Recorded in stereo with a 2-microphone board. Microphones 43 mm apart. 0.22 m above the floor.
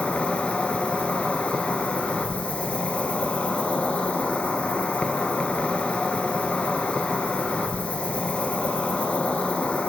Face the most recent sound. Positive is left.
turn(degrees=30)  # may be behind; listen again after turning